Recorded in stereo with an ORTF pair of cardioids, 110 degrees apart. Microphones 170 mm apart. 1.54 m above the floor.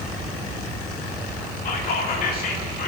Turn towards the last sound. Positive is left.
turn(degrees=60)